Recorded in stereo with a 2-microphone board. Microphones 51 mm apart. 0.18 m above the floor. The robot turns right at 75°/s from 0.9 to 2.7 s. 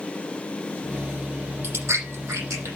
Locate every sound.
1.6 s chewing: 40° right (ahead or behind), 7 m; by 2.7 s 60° right (ahead or behind), 7 m